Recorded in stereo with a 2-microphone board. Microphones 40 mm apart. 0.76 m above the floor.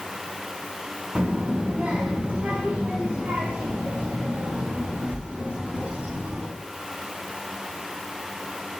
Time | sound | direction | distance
1.1 | a child speaking | 35° right (ahead or behind) | 0.7 m